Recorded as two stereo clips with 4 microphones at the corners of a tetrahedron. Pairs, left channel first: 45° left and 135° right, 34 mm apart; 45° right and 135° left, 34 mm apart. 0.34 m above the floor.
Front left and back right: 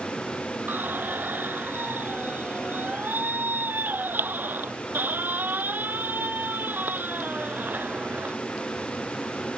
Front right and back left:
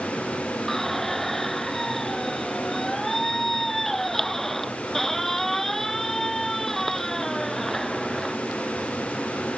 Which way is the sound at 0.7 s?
125° right.